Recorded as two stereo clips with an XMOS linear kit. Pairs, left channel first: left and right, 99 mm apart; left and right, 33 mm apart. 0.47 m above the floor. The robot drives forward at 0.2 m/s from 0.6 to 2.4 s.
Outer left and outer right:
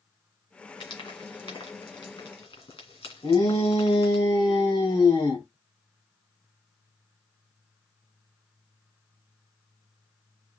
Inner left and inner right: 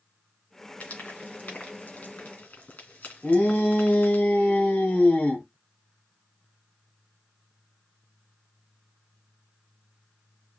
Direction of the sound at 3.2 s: 55° left (ahead or behind).